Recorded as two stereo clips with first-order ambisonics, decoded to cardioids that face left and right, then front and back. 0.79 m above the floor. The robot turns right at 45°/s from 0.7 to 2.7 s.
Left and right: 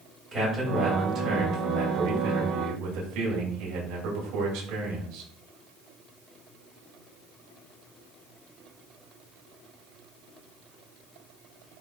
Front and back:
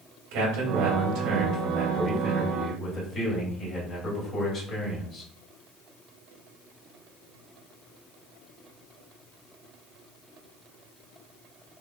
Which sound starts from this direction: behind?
A man speaking, at 0.3 s.